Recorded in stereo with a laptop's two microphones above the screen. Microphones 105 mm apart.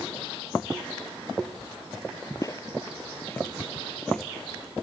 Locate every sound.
2.4 s footsteps: 35° left (ahead or behind); by 4.3 s 5° left (ahead or behind)